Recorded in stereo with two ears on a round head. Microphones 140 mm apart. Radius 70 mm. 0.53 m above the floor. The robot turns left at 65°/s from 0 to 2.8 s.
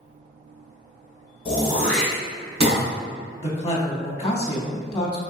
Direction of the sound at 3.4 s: 25° left (ahead or behind).